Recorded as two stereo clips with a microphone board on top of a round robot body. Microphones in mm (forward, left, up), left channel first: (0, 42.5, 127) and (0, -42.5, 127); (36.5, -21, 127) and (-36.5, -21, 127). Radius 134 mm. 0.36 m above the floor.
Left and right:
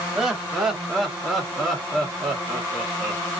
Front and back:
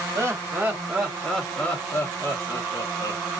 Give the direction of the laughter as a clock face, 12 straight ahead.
6 o'clock.